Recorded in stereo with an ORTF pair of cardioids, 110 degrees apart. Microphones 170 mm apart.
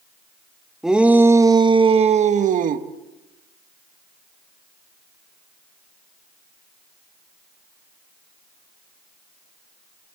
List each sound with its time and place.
0.8 s a shout: 5° right, 1.5 m; by 2.9 s 55° right, 1.8 m